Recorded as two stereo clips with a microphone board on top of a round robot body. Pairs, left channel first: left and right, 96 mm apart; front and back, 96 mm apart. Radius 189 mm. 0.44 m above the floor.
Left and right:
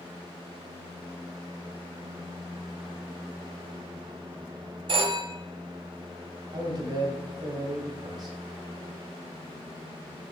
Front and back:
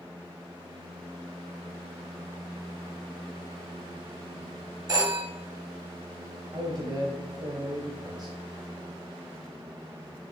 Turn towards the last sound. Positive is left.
turn(degrees=-135)